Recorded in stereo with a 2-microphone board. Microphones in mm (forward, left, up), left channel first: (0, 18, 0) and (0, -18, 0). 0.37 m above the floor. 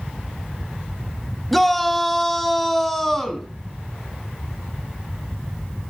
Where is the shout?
5° left (ahead or behind), 1.9 m.